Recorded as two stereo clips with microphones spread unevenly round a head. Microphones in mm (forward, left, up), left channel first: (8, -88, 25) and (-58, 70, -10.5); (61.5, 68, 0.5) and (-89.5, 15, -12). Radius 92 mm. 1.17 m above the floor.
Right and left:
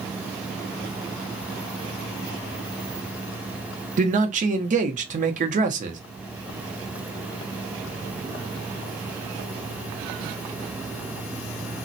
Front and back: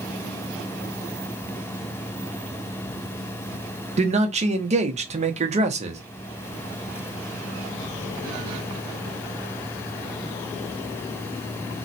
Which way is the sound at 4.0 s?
155° left.